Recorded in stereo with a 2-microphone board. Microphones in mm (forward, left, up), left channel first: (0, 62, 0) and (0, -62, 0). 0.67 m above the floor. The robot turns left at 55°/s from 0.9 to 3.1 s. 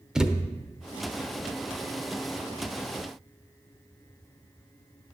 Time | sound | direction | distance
0.1 | a thud | 5° right (ahead or behind) | 0.6 m